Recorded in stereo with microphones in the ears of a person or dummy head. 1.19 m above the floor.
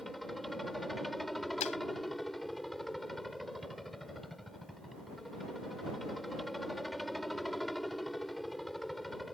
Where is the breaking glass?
35° left (ahead or behind).